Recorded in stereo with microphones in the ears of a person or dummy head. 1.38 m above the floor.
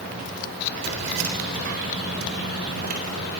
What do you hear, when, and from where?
0.8 s keys jangling: 70° right (ahead or behind), 3.5 m; by 3.3 s 50° right (ahead or behind), 5 m